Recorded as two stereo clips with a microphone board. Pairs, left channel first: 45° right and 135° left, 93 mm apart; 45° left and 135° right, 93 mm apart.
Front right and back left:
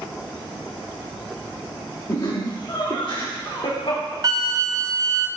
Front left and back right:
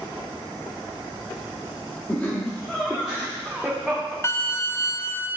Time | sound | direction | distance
2.1 | laughter | 15° right | 1.1 m
4.2 | a flute | 95° left | 0.6 m